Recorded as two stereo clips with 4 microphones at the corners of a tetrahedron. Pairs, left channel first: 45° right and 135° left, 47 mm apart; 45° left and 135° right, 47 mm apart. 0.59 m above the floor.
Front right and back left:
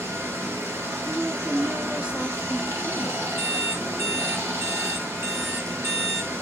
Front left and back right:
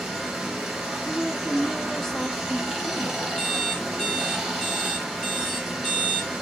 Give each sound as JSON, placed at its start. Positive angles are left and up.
{"t": 0.0, "sound": "running water", "azimuth_deg": 135, "distance_m": 1.9}
{"t": 1.1, "sound": "a woman speaking", "azimuth_deg": 115, "distance_m": 0.6}
{"t": 3.4, "sound": "an alarm clock", "azimuth_deg": 120, "distance_m": 1.8}